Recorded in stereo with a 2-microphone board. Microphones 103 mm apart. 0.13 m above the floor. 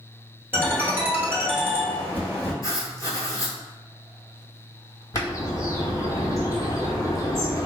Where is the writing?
35° left (ahead or behind), 0.8 m.